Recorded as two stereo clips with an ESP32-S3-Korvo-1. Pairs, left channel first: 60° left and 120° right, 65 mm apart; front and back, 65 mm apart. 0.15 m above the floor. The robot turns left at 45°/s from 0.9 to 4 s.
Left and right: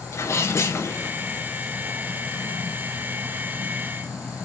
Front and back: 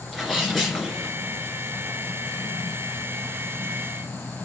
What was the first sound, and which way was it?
A sneeze, 80° left.